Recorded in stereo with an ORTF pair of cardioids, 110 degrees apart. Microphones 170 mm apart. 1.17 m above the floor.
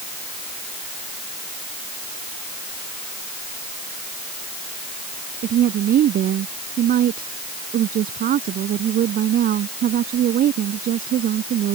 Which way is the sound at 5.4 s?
60° right.